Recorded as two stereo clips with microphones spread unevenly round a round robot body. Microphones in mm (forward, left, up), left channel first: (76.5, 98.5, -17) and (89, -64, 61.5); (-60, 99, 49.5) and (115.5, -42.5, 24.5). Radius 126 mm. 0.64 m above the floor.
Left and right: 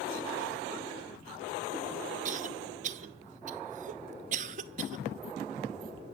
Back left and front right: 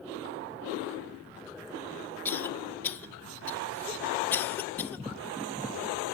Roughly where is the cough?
Behind right.